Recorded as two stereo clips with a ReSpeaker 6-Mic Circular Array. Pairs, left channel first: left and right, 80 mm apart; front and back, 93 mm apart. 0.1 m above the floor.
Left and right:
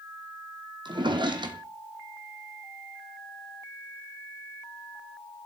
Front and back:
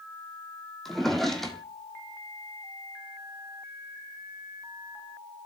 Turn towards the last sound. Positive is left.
turn(degrees=-90)